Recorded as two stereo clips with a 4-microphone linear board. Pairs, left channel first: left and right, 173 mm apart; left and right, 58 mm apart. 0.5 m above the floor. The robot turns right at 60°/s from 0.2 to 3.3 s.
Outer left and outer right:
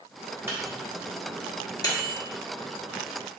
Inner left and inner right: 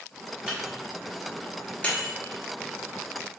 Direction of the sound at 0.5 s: 15° right (ahead or behind).